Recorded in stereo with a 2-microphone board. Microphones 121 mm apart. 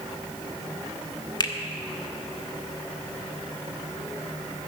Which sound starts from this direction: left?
A finger snap, at 1.4 s.